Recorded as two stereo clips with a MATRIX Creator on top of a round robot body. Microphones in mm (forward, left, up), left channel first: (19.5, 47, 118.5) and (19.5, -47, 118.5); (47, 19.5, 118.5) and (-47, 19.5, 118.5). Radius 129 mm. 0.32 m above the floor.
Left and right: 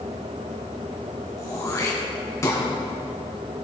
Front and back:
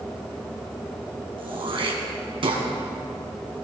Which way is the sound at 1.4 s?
150° left.